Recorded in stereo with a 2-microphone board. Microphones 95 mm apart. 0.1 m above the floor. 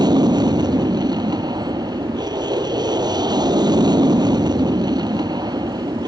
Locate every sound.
0.0 s an aircraft: 45° right (ahead or behind)